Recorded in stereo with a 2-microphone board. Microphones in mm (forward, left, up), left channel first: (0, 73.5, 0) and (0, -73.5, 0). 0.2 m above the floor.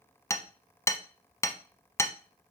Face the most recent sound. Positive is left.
turn(degrees=20)  # may be behind; listen again after turning